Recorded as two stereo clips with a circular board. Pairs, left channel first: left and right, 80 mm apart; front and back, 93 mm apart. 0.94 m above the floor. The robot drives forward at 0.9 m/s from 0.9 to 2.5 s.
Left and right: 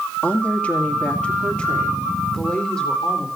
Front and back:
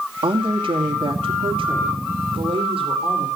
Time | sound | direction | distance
0.2 | a woman speaking | 165° left | 2.0 m